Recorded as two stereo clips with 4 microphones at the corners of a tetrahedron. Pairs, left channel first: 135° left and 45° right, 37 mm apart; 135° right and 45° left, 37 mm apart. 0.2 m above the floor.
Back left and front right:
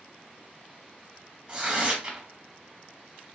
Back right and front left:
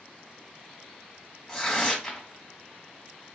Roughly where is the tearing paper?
Ahead right.